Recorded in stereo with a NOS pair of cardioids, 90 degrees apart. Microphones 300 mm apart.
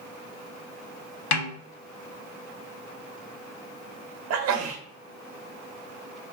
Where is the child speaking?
No child speaking in this recording.